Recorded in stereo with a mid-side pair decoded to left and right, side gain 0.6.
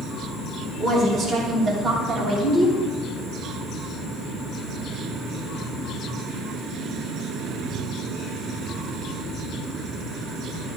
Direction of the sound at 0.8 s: 35° right.